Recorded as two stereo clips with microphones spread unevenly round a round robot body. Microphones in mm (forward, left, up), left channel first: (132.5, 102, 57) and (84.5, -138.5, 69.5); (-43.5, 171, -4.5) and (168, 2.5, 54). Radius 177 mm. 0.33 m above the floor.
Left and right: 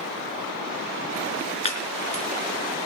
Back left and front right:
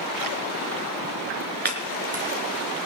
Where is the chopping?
15° left, 4 m.